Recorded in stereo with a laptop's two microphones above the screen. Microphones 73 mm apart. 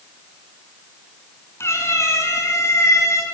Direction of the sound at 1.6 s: 35° left (ahead or behind).